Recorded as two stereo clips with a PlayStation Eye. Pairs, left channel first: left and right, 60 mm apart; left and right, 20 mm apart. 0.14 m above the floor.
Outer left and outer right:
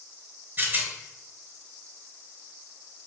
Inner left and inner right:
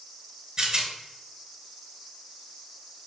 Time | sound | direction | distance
0.6 | a rattle | 35° right (ahead or behind) | 0.7 m